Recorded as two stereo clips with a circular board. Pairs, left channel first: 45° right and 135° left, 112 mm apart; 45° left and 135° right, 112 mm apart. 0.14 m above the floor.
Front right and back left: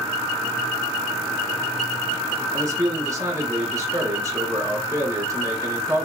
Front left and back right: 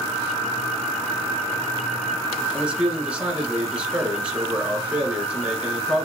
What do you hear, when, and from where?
2.5 s a man speaking: 155° left, 1.2 m